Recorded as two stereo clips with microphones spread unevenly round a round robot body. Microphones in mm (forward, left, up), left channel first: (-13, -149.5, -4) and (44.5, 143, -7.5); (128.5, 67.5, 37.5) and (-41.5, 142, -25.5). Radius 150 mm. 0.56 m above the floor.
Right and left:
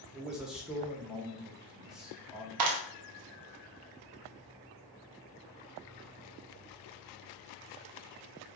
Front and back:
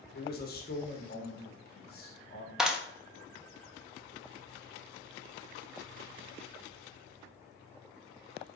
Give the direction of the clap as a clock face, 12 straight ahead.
9 o'clock.